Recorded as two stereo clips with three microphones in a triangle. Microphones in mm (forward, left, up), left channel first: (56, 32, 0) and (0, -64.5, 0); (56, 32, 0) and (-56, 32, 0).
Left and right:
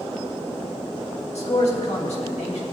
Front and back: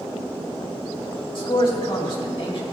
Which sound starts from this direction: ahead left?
A man speaking, at 1.4 s.